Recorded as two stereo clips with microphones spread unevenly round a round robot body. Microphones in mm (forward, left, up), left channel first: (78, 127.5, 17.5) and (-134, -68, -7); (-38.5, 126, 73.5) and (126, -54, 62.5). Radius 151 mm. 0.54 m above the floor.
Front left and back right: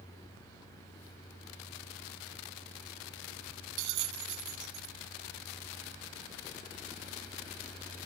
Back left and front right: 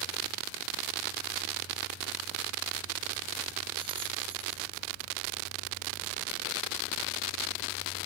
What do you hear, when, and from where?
3.8 s a bell: 120° right